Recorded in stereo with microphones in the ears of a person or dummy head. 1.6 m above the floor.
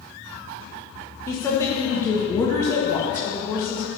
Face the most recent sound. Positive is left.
turn(degrees=15)  # may be behind; listen again after turning